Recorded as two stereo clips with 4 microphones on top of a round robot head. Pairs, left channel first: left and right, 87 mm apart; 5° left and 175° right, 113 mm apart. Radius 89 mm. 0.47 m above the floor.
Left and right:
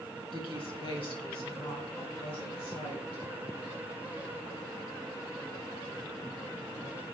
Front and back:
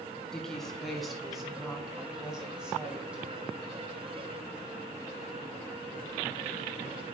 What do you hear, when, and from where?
0.3 s a woman speaking: 90° left, 3.5 m; by 3.2 s 105° left, 5 m